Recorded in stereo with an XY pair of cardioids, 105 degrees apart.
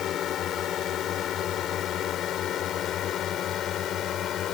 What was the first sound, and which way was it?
A drone, 65° left.